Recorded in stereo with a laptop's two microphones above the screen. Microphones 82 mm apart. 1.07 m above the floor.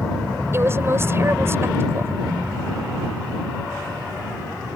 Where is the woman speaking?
35° right (ahead or behind).